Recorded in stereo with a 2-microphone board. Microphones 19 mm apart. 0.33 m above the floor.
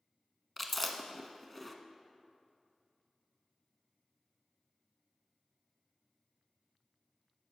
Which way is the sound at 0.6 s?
15° left (ahead or behind).